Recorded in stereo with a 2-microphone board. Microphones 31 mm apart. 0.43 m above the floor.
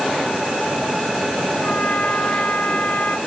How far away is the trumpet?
About 2.5 m.